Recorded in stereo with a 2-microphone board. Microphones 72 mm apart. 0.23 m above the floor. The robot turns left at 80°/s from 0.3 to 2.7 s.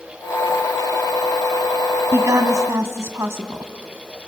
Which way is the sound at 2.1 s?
65° right.